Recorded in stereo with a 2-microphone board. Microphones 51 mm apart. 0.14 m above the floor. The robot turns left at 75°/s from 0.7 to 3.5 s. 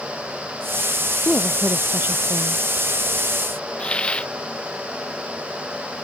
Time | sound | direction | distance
1.2 | a woman speaking | 10° left | ?
3.8 | a hiss | 20° left (ahead or behind) | ?